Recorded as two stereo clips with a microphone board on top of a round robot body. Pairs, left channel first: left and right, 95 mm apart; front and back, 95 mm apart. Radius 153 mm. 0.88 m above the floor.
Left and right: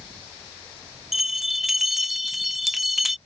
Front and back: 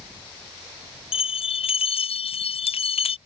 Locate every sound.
1.1 s a bell: straight ahead